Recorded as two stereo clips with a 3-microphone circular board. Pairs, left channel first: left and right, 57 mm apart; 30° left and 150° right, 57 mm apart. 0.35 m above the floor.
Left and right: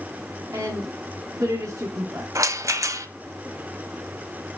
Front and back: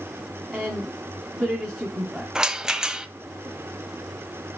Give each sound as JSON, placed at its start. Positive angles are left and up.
{"t": 0.5, "sound": "a woman speaking", "azimuth_deg": -75, "distance_m": 2.5}
{"t": 2.4, "sound": "a rattle", "azimuth_deg": -75, "distance_m": 0.7}